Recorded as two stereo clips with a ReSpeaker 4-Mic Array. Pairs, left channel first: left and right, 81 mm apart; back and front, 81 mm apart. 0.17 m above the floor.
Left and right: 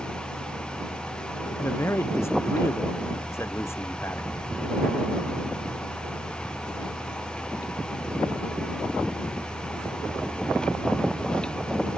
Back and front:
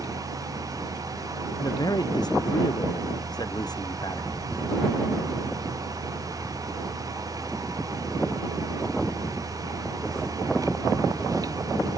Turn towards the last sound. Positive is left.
turn(degrees=145)